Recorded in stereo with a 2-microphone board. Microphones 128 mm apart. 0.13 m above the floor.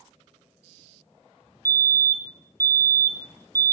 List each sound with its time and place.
1.6 s a fire alarm: 25° right (ahead or behind), 3 m